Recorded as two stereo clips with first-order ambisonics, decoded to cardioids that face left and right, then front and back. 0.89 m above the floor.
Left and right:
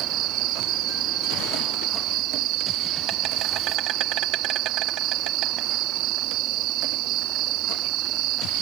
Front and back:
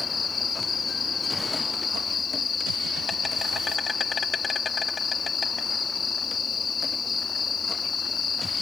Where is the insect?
70° right.